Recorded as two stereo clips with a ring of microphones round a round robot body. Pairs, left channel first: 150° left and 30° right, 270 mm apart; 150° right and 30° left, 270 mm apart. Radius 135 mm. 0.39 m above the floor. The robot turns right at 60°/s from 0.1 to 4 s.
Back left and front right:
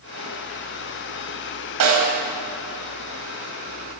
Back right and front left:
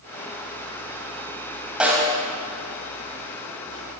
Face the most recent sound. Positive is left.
turn(degrees=75)